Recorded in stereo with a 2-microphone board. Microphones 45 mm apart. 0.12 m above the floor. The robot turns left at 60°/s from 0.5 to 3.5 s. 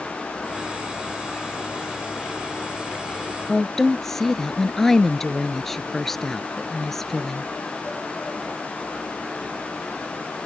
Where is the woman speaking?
5° left (ahead or behind).